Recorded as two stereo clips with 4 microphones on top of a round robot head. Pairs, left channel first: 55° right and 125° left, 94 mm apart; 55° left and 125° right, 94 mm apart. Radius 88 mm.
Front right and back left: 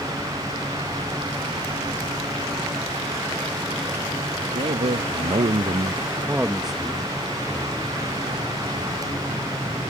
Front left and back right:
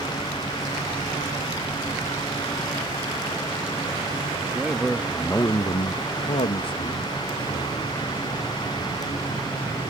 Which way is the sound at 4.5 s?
155° left.